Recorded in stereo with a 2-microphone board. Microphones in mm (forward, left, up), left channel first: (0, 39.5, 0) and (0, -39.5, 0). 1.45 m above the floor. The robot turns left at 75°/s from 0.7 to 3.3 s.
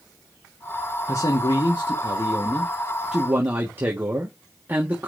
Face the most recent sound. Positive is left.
turn(degrees=-25)